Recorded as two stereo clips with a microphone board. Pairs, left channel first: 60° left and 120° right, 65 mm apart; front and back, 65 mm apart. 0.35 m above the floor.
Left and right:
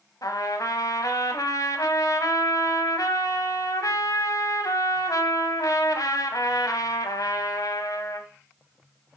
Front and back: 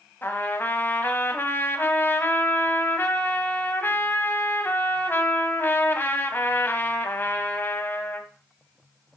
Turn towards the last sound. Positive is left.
turn(degrees=55)